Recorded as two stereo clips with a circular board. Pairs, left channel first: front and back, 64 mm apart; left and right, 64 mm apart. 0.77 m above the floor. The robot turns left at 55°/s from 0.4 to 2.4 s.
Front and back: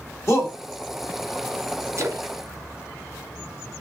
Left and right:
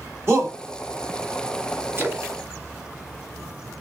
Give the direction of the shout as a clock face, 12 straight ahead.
1 o'clock.